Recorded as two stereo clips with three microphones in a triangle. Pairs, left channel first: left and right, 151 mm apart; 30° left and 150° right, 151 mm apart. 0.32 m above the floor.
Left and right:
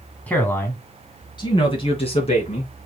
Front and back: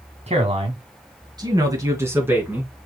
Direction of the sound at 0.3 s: 170° left.